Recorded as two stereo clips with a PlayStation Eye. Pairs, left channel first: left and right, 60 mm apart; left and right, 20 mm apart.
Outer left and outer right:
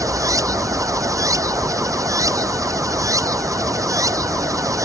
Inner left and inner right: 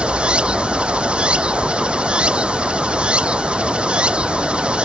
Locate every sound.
0.0 s running water: 70° right (ahead or behind)